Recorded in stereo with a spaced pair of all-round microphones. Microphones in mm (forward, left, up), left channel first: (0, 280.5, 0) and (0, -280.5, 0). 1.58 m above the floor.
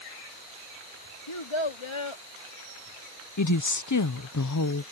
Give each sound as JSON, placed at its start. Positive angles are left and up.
{"t": 1.3, "sound": "a child speaking", "side_deg": 50}
{"t": 3.4, "sound": "a woman speaking", "side_deg": 30}